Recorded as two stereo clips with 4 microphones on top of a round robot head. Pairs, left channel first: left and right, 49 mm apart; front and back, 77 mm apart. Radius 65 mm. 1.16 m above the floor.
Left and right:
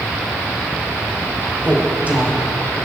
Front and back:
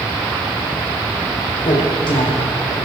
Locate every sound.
1.6 s a woman speaking: 30° right, 4 m